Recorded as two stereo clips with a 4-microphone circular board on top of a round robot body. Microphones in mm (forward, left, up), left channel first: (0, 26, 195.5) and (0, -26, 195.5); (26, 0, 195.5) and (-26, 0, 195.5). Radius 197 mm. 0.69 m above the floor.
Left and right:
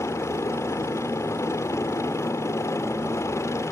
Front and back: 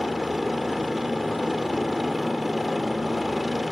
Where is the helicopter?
95° left.